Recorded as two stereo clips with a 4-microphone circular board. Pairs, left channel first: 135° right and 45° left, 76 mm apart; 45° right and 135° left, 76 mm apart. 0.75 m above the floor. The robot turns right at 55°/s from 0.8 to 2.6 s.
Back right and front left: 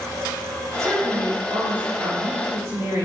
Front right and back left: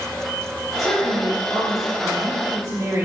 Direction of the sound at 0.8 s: 5° right.